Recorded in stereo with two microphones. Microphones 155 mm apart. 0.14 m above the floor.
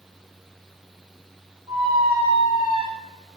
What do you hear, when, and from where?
1.7 s a squeak: 10° right (ahead or behind), 1.8 m